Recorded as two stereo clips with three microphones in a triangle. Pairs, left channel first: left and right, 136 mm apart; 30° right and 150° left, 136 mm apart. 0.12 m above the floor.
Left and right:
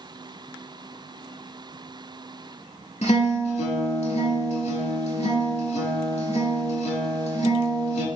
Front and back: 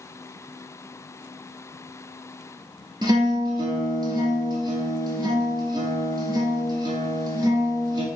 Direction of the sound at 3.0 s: 100° left.